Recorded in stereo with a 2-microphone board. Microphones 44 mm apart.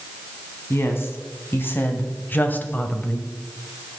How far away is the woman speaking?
About 2.5 m.